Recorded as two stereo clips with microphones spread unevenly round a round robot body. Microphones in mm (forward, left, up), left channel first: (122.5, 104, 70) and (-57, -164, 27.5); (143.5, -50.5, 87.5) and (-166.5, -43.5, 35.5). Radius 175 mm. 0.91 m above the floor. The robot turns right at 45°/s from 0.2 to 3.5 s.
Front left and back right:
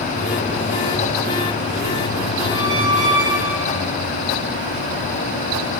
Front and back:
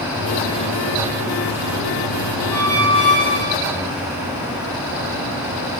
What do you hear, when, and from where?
2.5 s a squeak: 150° right, 5.5 m; by 3.9 s 105° right, 5.5 m